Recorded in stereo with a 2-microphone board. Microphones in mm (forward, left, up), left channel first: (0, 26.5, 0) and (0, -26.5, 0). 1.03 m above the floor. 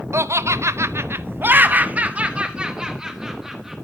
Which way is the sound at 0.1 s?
60° right (ahead or behind).